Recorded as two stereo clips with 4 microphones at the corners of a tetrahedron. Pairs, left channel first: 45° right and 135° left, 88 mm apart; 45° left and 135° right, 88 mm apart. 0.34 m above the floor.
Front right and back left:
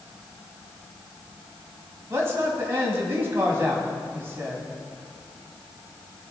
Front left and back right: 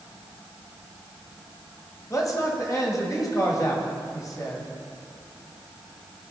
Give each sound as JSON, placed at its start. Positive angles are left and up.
{"t": 2.1, "sound": "a man speaking", "azimuth_deg": 80, "distance_m": 2.5}